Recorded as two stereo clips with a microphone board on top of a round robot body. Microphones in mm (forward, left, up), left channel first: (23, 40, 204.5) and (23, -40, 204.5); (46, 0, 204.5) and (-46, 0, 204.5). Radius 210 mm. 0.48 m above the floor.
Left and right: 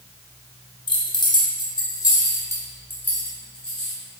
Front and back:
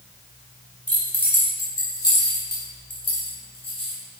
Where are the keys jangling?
80° left, 2 m; by 4.0 s 5° left, 3 m.